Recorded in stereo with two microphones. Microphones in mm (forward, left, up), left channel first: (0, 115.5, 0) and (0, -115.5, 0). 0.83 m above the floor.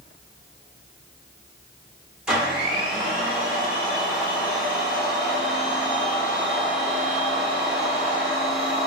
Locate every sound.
2.3 s a blender: 5° right (ahead or behind), 0.9 m